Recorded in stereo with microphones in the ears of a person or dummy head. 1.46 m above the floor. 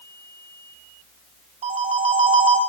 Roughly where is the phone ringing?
Right.